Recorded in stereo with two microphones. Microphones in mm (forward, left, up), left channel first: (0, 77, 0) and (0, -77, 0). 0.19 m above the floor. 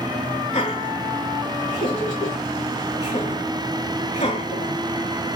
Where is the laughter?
40° left (ahead or behind), 2.5 m.